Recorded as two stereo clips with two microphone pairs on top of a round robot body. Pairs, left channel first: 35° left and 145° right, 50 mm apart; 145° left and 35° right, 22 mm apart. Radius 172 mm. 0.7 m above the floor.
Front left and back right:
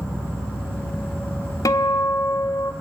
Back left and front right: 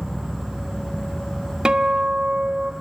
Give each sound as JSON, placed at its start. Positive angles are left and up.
{"t": 0.0, "sound": "an insect", "azimuth_deg": 65, "distance_m": 7.5}
{"t": 1.6, "sound": "a guitar", "azimuth_deg": 15, "distance_m": 0.5}